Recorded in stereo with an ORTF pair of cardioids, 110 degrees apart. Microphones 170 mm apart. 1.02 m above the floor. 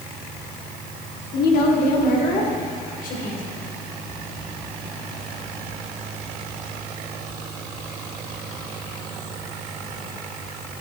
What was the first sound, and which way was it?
A woman speaking, 65° left.